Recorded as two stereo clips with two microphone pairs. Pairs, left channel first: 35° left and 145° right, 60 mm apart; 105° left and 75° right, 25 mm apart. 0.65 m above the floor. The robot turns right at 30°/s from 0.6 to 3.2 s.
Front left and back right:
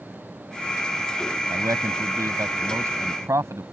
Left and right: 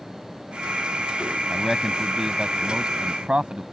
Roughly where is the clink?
No clink in this recording.